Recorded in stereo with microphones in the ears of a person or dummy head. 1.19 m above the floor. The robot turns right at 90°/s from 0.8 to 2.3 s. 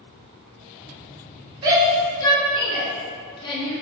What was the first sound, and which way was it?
A shout, 25° right (ahead or behind).